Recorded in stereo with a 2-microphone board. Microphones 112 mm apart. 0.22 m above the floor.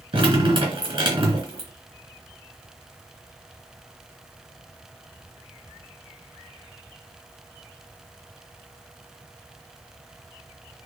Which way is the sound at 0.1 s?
45° right (ahead or behind).